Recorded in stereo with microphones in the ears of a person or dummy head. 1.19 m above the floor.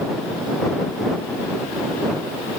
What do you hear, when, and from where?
Only background noise.